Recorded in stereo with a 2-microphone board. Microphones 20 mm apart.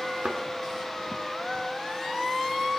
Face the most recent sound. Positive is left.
turn(degrees=-85)